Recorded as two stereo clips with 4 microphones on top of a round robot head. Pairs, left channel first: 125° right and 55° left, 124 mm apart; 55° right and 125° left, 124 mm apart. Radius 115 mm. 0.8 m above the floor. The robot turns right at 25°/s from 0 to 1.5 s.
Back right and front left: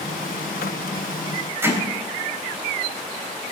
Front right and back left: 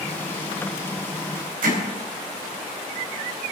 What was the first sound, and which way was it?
Hammering, 125° left.